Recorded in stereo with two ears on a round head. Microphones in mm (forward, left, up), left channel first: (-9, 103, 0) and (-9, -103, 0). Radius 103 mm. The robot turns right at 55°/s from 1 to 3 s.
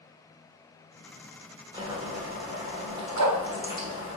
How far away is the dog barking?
About 0.8 m.